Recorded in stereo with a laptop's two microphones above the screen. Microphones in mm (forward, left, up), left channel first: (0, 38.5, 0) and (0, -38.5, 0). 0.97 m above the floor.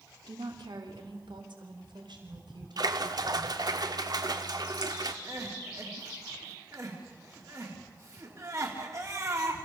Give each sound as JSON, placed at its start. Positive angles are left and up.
{"t": 0.3, "sound": "a woman speaking", "side_deg": -65, "distance_m": 3.0}
{"t": 2.8, "sound": "a splash", "side_deg": -55, "distance_m": 1.2}
{"t": 5.2, "sound": "crying", "side_deg": -45, "distance_m": 3.0}